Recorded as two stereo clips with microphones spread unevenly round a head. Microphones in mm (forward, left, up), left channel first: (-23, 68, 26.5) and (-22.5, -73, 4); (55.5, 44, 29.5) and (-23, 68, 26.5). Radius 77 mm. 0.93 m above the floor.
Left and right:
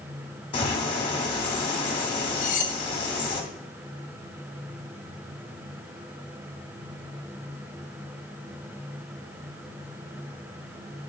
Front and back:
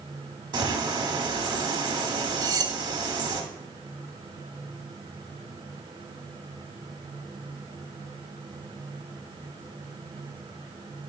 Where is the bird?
140° left, 1.0 m.